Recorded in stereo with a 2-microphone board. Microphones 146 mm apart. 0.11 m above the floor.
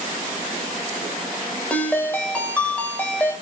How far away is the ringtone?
About 1.9 m.